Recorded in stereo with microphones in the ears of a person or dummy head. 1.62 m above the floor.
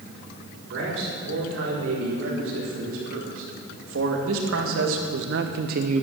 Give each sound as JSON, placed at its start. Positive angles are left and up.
{"t": 0.7, "sound": "a man speaking", "side_deg": -85, "distance_m": 6.0}